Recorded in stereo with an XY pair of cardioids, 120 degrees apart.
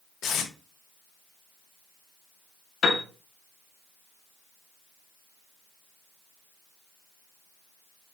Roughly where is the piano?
Ahead left.